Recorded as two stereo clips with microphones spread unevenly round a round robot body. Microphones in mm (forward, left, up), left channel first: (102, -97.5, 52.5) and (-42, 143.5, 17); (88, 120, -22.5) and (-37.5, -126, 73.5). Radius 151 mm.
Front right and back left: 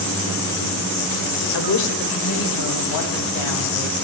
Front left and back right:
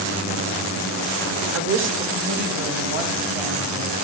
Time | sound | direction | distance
1.5 | a woman speaking | 65° right | 2 m